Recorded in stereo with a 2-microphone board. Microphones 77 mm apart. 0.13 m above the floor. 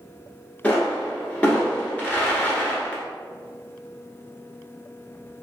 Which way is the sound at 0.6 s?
20° left (ahead or behind).